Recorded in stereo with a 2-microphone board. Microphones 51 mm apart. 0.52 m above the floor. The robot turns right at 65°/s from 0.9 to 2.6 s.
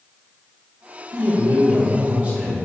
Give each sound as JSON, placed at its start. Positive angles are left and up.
{"t": 1.1, "sound": "a man speaking", "azimuth_deg": -110, "distance_m": 1.9}